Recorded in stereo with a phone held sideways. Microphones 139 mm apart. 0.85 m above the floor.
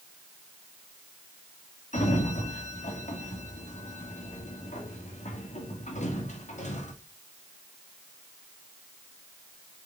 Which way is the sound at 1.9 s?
60° left (ahead or behind).